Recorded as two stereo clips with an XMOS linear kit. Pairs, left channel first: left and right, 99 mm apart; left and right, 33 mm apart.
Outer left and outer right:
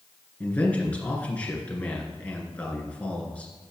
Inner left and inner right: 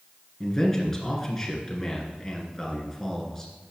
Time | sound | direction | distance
0.4 | a man speaking | 15° left (ahead or behind) | 2.5 m